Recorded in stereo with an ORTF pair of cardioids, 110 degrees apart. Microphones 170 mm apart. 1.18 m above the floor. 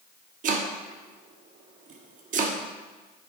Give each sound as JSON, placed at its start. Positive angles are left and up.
{"t": 0.4, "sound": "chopping", "azimuth_deg": -55, "distance_m": 1.3}